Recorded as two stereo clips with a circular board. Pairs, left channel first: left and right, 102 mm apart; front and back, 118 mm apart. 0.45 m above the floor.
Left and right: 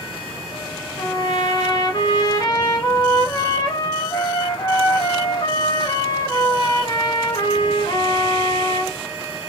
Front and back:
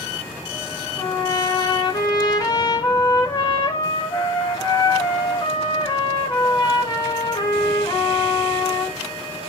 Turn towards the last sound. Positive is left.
turn(degrees=45)